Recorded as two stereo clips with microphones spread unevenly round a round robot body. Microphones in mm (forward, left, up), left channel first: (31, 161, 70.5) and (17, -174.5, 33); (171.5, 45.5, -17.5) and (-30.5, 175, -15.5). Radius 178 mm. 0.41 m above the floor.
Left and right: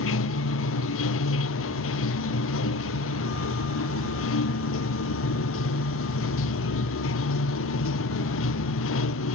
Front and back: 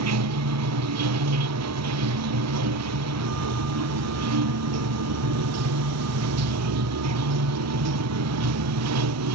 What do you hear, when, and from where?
0.0 s running water: 140° left